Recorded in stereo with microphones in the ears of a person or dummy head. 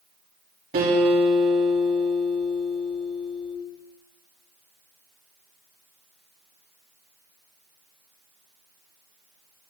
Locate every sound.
0.7 s a guitar: 45° right (ahead or behind), 3.5 m